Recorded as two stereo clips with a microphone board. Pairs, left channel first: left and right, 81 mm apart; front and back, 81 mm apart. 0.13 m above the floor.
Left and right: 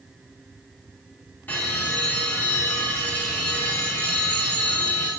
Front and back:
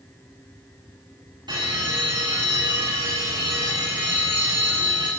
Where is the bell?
160° left, 7 m.